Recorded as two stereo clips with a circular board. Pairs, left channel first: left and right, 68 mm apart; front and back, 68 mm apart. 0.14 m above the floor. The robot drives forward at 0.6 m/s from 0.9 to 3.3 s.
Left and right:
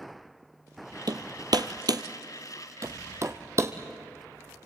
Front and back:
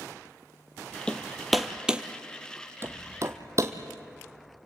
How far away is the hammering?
About 1.1 m.